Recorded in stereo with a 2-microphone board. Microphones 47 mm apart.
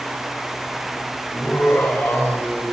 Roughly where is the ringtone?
No ringtone in this recording.